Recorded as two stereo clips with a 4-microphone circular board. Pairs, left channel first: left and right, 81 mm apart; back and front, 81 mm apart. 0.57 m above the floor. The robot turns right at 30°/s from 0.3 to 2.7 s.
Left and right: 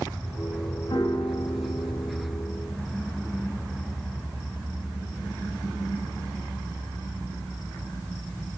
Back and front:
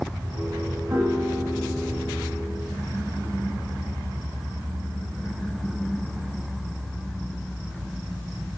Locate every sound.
0.9 s a piano: 60° left, 5.5 m; by 2.5 s 105° left, 5.5 m